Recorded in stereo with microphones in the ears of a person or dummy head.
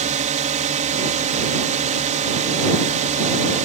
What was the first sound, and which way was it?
A drone, 40° right (ahead or behind).